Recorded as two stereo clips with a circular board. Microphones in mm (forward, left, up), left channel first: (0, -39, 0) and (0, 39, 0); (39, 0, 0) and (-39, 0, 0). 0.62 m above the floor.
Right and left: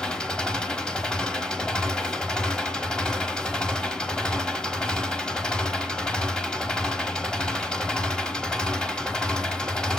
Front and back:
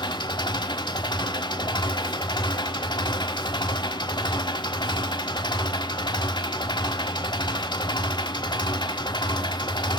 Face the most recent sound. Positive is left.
turn(degrees=-10)